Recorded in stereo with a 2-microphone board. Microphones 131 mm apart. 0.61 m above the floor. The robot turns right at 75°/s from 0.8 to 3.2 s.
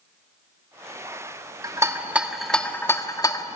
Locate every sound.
1.6 s a rattle: 30° right (ahead or behind), 1.3 m; by 3.6 s 30° left (ahead or behind), 1.3 m